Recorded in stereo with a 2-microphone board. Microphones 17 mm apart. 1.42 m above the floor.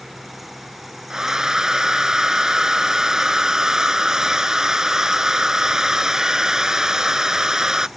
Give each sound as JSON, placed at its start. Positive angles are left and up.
{"t": 1.1, "sound": "a hair dryer", "side_deg": -35}